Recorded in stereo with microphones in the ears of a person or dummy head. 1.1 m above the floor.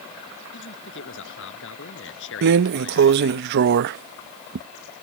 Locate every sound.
0.5 s a man speaking: 65° left (ahead or behind); by 3.4 s 70° left (ahead or behind)
2.4 s a drawer: 50° right (ahead or behind)